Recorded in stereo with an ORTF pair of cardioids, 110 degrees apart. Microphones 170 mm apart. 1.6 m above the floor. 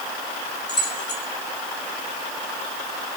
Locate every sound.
0.7 s keys jangling: 25° left, 5.5 m